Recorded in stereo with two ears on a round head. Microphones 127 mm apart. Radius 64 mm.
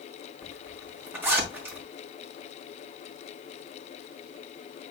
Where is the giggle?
I don't hear a giggle.